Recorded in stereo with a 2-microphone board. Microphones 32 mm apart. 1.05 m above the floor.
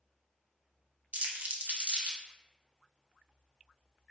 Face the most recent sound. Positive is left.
turn(degrees=-50)  # may be behind; listen again after turning